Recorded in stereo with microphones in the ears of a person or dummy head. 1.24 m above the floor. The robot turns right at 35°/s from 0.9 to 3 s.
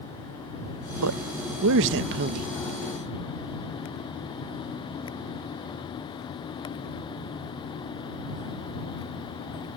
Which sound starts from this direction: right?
A man speaking, at 1.0 s.